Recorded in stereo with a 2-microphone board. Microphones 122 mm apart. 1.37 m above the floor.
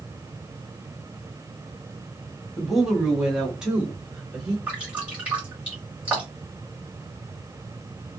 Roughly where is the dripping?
Centre.